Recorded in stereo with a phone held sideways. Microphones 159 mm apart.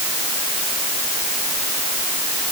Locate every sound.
Only background noise.